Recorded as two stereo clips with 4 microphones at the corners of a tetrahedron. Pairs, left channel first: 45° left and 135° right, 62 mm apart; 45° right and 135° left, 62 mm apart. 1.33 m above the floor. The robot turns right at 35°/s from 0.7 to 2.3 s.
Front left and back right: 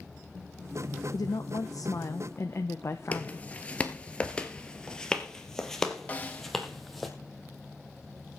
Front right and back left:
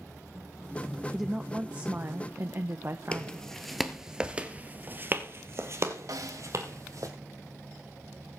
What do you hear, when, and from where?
1.1 s a woman speaking: 50° left, 1.0 m; by 3.5 s 90° left, 1.0 m
3.1 s footsteps: 10° left, 1.4 m; by 7.1 s 135° left, 2.5 m
6.1 s a snare drum: 110° left, 1.3 m